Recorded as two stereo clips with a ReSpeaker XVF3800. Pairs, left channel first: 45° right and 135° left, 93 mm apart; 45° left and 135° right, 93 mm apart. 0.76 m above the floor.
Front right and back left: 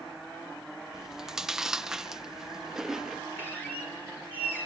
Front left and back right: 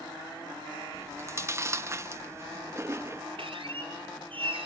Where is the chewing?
145° right, 0.7 m.